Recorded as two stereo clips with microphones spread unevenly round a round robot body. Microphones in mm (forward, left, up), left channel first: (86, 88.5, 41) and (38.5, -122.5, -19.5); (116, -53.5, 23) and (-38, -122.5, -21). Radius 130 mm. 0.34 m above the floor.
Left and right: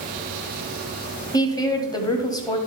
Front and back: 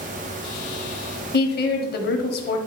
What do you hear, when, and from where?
1.3 s a woman speaking: straight ahead, 1.6 m